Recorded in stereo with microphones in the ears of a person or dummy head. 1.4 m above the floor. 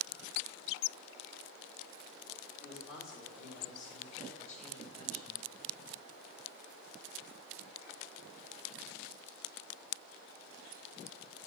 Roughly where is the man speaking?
Left.